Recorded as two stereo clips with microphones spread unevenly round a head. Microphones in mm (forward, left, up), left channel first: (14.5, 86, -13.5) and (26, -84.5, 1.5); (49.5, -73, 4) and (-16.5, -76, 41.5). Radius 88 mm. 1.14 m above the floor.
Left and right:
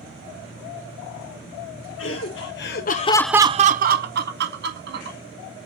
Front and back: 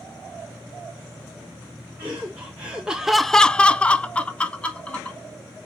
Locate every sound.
2.0 s laughter: 100° left, 1.5 m; by 5.2 s 65° right, 2.5 m